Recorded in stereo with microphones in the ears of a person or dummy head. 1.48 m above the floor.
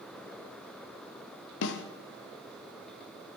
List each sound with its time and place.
1.6 s a snare drum: 65° left (ahead or behind), 0.7 m